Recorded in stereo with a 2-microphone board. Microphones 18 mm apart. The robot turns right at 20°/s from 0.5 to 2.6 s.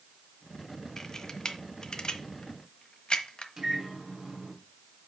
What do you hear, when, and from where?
1.0 s a camera shutter: 25° left (ahead or behind), 1.2 m; by 3.5 s 55° left (ahead or behind), 1.2 m
3.6 s a microwave: 35° right (ahead or behind), 2.5 m